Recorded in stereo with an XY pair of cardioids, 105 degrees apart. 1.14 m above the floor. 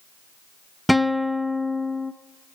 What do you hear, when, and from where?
0.9 s a guitar: straight ahead, 0.6 m